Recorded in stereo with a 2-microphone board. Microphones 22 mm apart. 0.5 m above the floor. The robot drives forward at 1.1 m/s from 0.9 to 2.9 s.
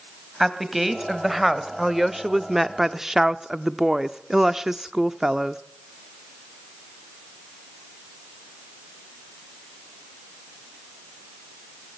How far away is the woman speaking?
About 2.5 m.